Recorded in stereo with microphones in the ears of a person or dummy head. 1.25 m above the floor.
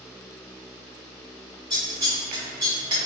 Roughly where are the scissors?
Right.